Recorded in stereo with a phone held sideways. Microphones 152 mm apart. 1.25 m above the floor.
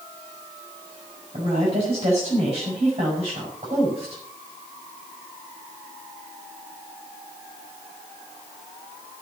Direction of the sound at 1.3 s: 45° right (ahead or behind).